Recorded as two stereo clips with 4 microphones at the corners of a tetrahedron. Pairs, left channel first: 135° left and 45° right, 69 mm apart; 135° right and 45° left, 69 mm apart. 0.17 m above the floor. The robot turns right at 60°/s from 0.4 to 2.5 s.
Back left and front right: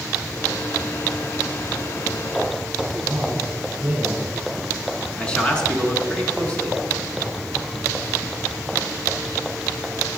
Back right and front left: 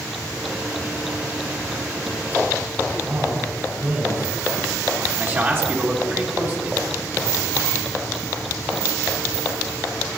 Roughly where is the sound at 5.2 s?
Left.